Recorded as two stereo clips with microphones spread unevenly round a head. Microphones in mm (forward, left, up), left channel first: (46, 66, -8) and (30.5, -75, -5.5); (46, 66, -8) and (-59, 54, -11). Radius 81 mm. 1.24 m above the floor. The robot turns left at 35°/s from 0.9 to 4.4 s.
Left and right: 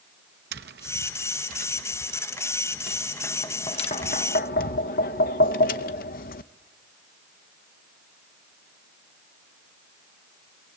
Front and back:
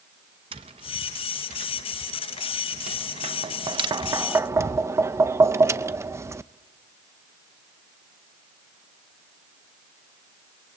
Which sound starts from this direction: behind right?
Tapping, at 0.5 s.